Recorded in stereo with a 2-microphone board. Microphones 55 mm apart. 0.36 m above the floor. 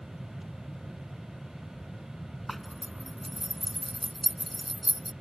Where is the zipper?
Centre (ahead or behind).